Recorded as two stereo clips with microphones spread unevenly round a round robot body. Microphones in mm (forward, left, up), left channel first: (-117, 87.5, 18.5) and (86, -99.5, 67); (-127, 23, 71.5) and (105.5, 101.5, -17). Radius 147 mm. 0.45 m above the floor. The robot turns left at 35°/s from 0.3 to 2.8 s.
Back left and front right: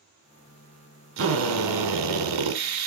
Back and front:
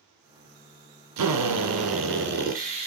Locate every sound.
1.2 s a drill: 5° left, 2 m; by 2.9 s 50° right, 2 m